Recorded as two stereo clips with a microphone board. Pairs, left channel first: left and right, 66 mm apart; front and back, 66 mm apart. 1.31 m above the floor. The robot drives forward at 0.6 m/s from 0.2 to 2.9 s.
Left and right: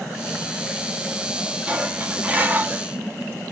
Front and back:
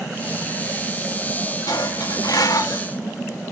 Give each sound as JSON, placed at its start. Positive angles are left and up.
{"t": 1.7, "sound": "dishes clattering", "azimuth_deg": -20, "distance_m": 1.9}